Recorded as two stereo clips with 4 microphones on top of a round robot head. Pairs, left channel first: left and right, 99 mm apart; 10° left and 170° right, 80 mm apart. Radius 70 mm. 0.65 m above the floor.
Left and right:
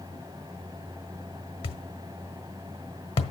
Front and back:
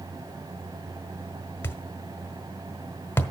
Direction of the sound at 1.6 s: 70° left.